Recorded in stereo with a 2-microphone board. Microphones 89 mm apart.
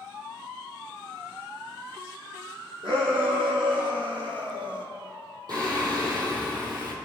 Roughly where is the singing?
Right.